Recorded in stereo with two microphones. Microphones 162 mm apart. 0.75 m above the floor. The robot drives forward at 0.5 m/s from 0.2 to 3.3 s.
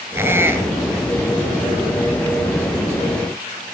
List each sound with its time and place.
0.1 s a squeak: 15° right (ahead or behind), 1.4 m; by 1.1 s 10° right (ahead or behind), 1.8 m